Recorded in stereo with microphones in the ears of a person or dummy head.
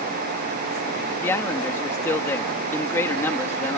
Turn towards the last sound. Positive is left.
turn(degrees=20)  # may be behind; listen again after turning